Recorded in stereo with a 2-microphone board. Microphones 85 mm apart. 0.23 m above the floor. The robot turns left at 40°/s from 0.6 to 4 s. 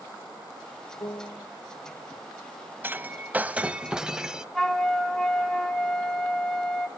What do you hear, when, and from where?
1.0 s a piano: 50° left (ahead or behind), 0.7 m; by 1.5 s 35° left (ahead or behind), 0.7 m
2.8 s breaking glass: 25° right (ahead or behind), 0.6 m; by 4.5 s 10° right (ahead or behind), 0.6 m
4.5 s a flute: 5° left (ahead or behind), 0.9 m